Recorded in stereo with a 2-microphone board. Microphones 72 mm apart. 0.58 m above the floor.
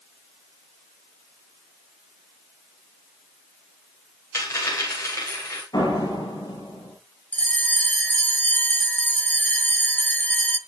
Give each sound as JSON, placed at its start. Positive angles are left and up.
{"t": 4.3, "sound": "a dropped coin", "side_deg": 40, "distance_m": 9.0}
{"t": 5.7, "sound": "a door slam", "side_deg": 60, "distance_m": 9.0}
{"t": 7.3, "sound": "a bell", "side_deg": 20, "distance_m": 0.8}